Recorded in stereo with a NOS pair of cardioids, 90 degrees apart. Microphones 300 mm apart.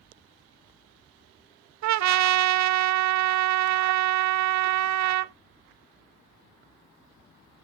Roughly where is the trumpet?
Ahead right.